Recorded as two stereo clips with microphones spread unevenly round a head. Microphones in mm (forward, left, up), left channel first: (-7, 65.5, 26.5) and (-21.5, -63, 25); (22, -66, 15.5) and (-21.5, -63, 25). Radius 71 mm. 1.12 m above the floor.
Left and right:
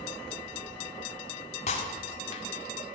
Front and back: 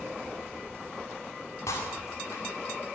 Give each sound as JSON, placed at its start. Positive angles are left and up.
{"t": 1.7, "sound": "breaking glass", "azimuth_deg": 40, "distance_m": 2.0}